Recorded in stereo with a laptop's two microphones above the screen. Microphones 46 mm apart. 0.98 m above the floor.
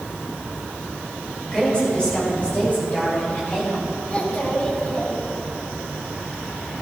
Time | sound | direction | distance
1.5 | a woman speaking | 20° left (ahead or behind) | 4 m
4.1 | a child speaking | 30° left (ahead or behind) | 3 m